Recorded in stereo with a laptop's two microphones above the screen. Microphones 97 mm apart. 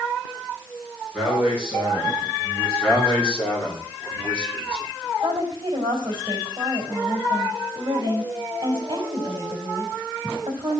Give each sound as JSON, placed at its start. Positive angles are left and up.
{"t": 1.1, "sound": "a man speaking", "side_deg": 5, "distance_m": 5.0}
{"t": 2.8, "sound": "a man speaking", "side_deg": 15, "distance_m": 2.5}
{"t": 5.2, "sound": "a woman speaking", "side_deg": -50, "distance_m": 3.5}